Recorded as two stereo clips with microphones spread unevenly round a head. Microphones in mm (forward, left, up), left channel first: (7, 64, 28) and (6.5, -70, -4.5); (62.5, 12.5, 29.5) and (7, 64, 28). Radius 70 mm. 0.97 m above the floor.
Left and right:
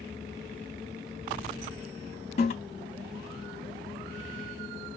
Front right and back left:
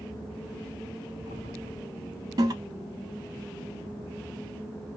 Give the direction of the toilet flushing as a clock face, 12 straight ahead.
8 o'clock.